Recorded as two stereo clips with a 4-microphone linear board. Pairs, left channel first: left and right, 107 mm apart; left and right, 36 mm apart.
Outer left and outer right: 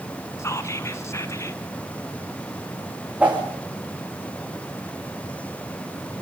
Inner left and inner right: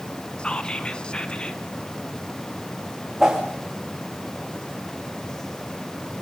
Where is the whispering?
25° left (ahead or behind), 1.2 m.